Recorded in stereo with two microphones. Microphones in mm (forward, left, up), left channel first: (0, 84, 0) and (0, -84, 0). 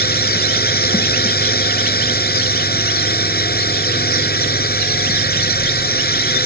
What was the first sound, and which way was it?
A drone, 65° left (ahead or behind).